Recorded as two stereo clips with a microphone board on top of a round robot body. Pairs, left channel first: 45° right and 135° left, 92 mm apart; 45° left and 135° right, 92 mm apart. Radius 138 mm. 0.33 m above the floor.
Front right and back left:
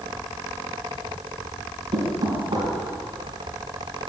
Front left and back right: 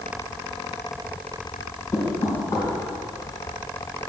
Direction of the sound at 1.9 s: 100° left.